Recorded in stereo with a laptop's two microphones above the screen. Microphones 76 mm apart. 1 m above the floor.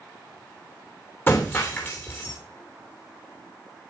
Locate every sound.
1.3 s breaking glass: 30° left (ahead or behind), 2.5 m